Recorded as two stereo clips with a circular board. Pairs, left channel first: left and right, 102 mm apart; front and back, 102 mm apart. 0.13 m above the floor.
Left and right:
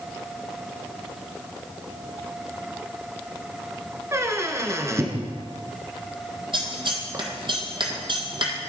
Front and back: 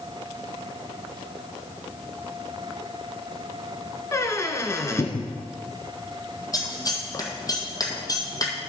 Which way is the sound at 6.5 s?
55° right.